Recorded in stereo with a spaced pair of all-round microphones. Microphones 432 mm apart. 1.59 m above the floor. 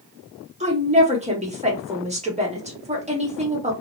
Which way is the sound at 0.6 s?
15° right (ahead or behind).